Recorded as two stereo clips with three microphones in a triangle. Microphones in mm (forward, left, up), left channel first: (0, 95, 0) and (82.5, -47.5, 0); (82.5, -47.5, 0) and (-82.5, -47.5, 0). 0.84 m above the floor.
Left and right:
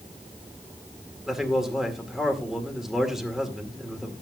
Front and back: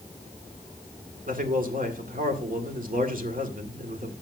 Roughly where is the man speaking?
Behind right.